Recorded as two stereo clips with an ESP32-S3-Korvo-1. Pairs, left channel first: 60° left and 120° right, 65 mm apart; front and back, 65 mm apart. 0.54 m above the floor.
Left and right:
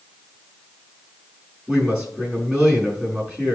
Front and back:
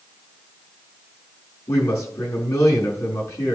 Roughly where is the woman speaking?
Ahead right.